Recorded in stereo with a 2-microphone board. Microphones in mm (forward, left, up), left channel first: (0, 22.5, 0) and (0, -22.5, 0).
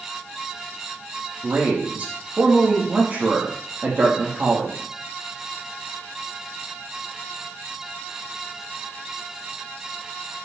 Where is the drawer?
I don't hear a drawer.